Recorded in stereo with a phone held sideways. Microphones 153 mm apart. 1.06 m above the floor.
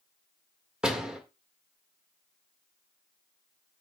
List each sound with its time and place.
0.8 s a door slam: 5° right (ahead or behind), 2.0 m